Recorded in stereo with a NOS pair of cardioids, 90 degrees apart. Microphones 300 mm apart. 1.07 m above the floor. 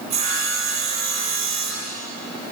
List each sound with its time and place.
0.1 s sawing: 65° right, 8 m